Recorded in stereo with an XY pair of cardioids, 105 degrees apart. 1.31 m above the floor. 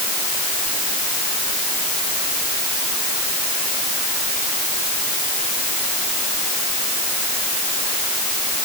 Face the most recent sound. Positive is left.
No sound to turn to.